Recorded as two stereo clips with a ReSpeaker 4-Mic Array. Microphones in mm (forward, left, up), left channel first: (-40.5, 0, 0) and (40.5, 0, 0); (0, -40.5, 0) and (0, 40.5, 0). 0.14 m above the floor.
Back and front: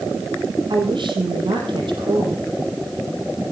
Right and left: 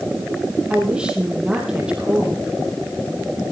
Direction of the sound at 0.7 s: 10° left.